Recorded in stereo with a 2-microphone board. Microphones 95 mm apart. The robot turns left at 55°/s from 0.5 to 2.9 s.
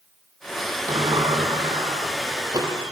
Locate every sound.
0.9 s a sliding door: 45° right, 3.5 m; by 2.7 s 145° right, 3.5 m